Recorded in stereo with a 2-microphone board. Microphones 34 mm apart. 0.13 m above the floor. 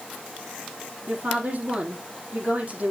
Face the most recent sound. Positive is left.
turn(degrees=-45)  # may be behind; listen again after turning